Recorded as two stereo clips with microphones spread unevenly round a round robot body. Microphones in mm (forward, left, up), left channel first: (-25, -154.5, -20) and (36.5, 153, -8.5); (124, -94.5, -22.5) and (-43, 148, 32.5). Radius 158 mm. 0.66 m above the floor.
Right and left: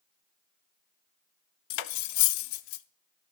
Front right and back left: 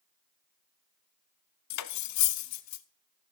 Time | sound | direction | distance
1.7 | cutlery clinking | 90° right | 0.6 m